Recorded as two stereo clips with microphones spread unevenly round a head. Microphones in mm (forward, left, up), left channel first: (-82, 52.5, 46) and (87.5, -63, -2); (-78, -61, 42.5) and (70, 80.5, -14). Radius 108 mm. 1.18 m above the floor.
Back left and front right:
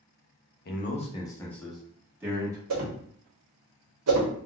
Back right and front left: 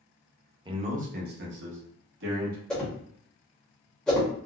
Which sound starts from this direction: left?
A man speaking, at 0.7 s.